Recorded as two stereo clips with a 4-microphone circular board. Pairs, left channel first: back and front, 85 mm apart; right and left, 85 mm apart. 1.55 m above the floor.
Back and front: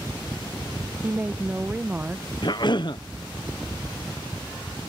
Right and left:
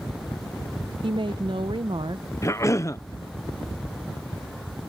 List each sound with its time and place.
1.0 s a woman speaking: 70° left
2.4 s a cough: 145° right